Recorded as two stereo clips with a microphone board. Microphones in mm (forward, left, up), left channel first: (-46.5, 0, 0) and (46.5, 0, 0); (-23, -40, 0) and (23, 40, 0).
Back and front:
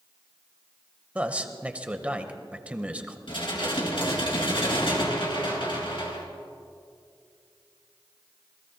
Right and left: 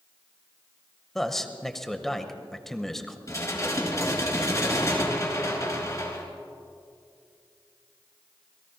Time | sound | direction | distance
1.1 | a man speaking | 45° right | 1.0 m
3.3 | dishes clattering | 170° right | 3 m